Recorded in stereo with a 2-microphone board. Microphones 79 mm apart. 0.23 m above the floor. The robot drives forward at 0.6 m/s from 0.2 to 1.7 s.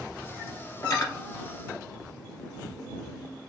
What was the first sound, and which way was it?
Cutlery clinking, 50° left (ahead or behind).